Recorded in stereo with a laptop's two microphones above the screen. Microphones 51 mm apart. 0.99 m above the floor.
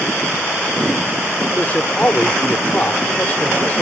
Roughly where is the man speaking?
Left.